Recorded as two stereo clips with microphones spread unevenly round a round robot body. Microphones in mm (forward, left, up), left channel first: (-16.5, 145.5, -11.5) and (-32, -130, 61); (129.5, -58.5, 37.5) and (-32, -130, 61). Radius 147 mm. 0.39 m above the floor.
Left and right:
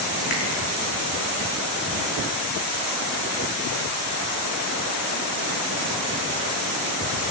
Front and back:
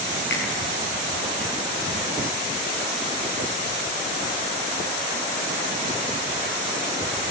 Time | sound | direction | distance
0.3 | a finger snap | 35° left | 5 m